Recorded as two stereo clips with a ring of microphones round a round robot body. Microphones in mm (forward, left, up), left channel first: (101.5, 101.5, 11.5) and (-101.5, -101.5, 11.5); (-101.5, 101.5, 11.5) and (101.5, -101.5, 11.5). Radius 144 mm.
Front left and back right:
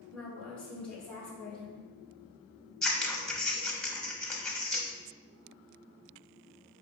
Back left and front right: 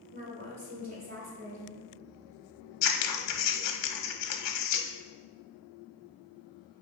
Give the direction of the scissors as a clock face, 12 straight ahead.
8 o'clock.